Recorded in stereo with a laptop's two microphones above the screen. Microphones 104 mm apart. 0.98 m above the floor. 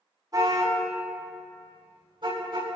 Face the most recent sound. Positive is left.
turn(degrees=-55)  # may be behind; listen again after turning